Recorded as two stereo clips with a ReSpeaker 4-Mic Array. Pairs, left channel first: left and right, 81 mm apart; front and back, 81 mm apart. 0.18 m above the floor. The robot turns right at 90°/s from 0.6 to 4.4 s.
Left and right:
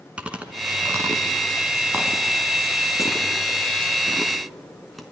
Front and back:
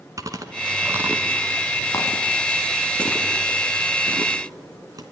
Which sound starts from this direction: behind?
Chewing, at 0.2 s.